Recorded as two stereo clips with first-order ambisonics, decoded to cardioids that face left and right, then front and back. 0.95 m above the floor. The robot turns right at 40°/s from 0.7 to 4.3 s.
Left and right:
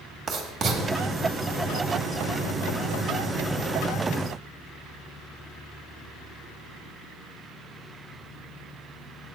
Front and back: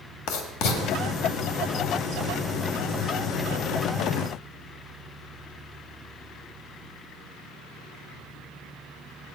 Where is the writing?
20° right, 1.4 m; by 0.8 s 15° right, 1.4 m.